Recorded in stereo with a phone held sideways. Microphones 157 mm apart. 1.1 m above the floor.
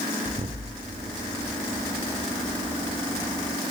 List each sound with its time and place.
0.2 s an explosion: 35° right (ahead or behind), 0.8 m